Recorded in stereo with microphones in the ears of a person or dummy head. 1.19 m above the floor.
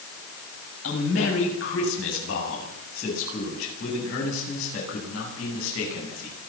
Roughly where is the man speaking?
Left.